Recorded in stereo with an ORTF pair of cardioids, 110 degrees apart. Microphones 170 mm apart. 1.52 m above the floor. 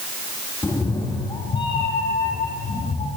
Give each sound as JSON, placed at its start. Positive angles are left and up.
{"t": 0.6, "sound": "a cat meowing", "azimuth_deg": 15, "distance_m": 5.0}